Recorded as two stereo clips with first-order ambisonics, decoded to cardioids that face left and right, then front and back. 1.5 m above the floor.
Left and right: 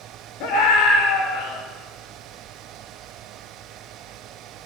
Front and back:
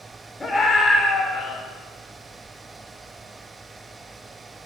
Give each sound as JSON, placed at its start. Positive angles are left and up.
{"t": 0.4, "sound": "a scream", "azimuth_deg": 80, "distance_m": 6.5}